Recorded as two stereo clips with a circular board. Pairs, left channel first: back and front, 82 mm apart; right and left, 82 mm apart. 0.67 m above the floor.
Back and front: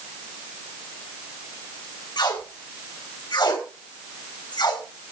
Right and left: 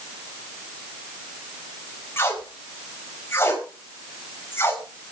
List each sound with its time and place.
2.2 s tape being pulled: 150° right, 4.5 m